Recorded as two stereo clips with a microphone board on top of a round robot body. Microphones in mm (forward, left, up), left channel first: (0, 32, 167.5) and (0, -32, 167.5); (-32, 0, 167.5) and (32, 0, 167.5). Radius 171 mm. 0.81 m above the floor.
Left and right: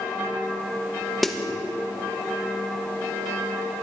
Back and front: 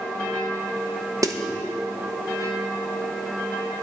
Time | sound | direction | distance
1.2 | a snare drum | straight ahead | 1.6 m